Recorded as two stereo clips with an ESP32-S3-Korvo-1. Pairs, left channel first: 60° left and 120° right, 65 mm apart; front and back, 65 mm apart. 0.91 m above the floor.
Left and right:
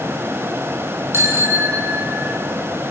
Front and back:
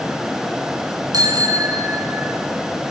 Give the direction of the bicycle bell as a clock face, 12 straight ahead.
6 o'clock.